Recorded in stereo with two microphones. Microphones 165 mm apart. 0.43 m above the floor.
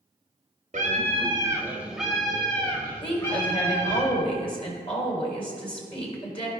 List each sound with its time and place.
0.7 s a scream: 50° right (ahead or behind), 1.1 m; by 4.0 s 20° left (ahead or behind), 3.5 m
3.0 s a woman speaking: 35° left (ahead or behind), 2.5 m